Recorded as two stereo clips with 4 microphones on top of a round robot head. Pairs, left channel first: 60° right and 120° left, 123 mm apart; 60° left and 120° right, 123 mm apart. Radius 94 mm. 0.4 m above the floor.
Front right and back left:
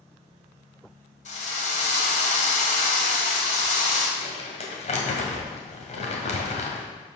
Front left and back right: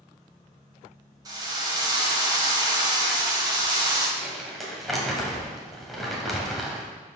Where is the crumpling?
30° right, 1.9 m.